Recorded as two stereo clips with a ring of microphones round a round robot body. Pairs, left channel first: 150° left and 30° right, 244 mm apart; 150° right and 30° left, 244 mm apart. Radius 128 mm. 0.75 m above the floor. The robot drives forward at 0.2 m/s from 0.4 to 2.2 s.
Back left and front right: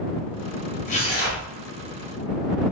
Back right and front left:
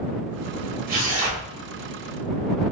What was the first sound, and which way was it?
Tearing paper, 90° left.